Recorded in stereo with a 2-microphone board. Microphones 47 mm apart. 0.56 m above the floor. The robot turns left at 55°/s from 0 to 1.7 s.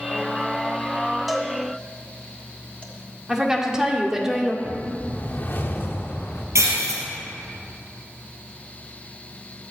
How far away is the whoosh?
About 1.2 m.